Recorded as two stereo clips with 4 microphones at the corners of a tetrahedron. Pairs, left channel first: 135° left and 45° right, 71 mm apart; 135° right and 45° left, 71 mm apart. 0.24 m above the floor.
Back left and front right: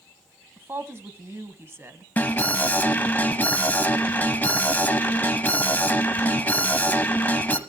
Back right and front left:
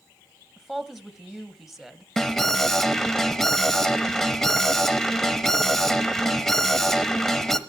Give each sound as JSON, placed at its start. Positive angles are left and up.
{"t": 0.6, "sound": "a woman speaking", "azimuth_deg": -40, "distance_m": 1.4}
{"t": 2.2, "sound": "an alarm", "azimuth_deg": 145, "distance_m": 1.1}